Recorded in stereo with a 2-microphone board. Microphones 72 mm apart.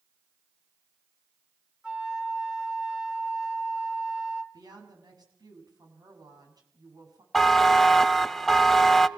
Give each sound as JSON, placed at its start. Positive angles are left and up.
{"t": 1.8, "sound": "a flute", "side_deg": -10, "distance_m": 2.5}
{"t": 4.5, "sound": "a woman speaking", "side_deg": -65, "distance_m": 7.5}
{"t": 7.3, "sound": "a buzzer", "side_deg": 5, "distance_m": 0.8}